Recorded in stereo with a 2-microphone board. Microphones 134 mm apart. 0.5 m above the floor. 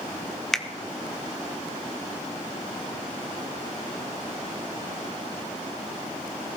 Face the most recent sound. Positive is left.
turn(degrees=5)  # may be behind; listen again after turning